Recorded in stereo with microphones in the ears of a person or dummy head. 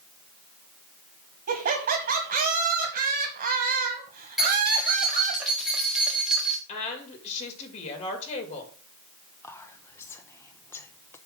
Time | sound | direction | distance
1.5 | laughter | 55° right (ahead or behind) | 1.4 m
4.4 | keys jangling | centre (ahead or behind) | 1.7 m
6.7 | a woman speaking | 35° left (ahead or behind) | 2 m
9.4 | whispering | 15° left (ahead or behind) | 0.8 m